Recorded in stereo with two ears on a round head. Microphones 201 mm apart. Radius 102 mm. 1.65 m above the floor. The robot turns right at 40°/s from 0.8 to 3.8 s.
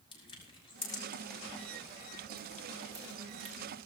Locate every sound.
0.1 s crushing: 25° left (ahead or behind), 4.5 m; by 3.7 s 80° right, 4.5 m